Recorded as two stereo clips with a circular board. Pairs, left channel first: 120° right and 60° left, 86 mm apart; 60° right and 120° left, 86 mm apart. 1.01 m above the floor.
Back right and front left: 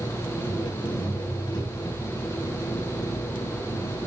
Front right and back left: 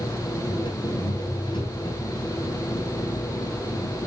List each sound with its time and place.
0.0 s an engine running: 85° right, 4 m